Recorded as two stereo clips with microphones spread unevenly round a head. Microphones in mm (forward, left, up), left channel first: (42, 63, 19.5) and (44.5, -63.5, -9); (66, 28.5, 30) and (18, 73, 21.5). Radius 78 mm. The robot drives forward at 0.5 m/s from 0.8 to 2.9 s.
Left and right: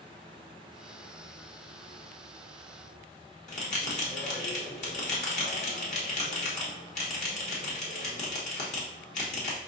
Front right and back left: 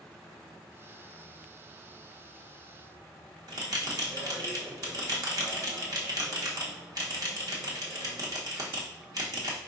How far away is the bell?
About 0.9 m.